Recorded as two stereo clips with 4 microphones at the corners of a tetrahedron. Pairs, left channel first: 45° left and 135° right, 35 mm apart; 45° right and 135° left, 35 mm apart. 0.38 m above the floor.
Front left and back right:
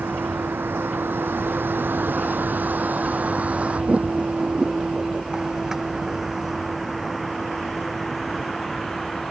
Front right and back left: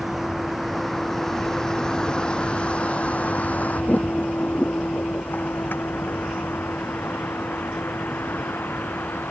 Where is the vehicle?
140° right; by 9.3 s 40° right.